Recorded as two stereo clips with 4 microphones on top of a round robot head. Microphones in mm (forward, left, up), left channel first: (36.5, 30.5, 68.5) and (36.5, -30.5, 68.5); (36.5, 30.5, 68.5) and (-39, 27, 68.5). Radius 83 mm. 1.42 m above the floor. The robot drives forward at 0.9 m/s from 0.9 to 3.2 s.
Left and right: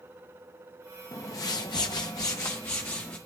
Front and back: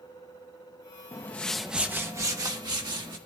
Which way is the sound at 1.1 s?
55° left.